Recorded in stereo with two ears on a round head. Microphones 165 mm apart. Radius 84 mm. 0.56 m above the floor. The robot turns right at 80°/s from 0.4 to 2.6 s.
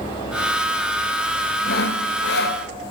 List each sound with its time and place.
1.6 s sawing: 50° left, 1.7 m; by 2.6 s 125° left, 1.7 m